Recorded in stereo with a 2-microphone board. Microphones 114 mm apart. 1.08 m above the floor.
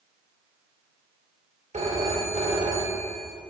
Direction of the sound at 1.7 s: 80° right.